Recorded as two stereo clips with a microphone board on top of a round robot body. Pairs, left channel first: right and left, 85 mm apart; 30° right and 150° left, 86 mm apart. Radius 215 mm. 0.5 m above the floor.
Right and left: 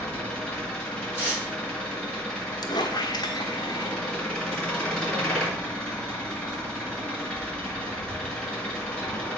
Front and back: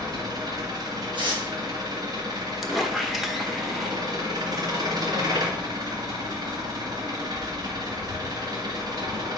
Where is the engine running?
170° right, 1.9 m.